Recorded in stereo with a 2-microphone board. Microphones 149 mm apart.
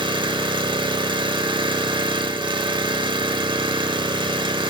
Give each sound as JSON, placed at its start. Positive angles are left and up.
{"t": 0.0, "sound": "an engine running", "side_deg": -35, "distance_m": 0.7}